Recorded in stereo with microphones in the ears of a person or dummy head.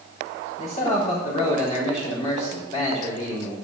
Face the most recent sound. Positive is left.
turn(degrees=40)  # may be behind; listen again after turning